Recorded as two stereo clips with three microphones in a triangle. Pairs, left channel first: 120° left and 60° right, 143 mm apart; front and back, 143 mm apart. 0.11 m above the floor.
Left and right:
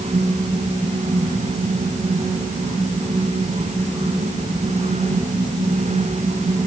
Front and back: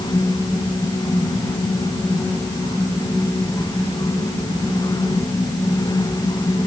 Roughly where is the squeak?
No squeak in this recording.